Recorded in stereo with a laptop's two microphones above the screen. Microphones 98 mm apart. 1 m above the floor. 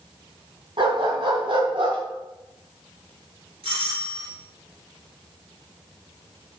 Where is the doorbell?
70° right (ahead or behind), 4 m.